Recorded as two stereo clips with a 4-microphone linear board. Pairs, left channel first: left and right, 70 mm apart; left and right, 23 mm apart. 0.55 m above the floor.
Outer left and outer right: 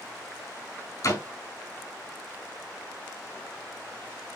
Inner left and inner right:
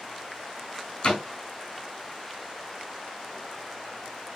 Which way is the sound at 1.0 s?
45° left (ahead or behind).